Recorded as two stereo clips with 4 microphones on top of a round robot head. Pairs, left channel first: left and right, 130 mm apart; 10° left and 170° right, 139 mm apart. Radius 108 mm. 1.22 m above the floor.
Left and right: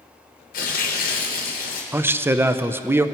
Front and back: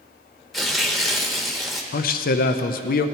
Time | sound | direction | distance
0.5 | tearing paper | 100° left | 1.1 m
1.9 | a man speaking | 15° right | 0.5 m